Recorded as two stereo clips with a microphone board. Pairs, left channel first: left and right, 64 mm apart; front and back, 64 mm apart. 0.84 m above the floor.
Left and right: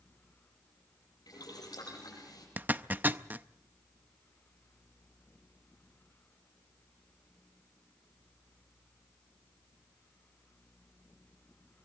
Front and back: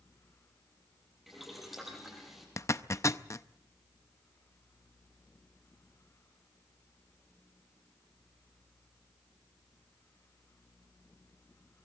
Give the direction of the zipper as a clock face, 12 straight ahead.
1 o'clock.